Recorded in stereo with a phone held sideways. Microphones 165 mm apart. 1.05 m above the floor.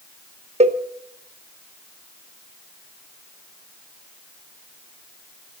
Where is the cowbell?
40° right (ahead or behind), 0.9 m.